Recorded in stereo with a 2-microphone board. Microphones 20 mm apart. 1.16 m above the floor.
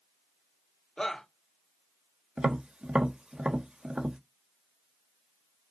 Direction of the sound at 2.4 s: 50° right (ahead or behind).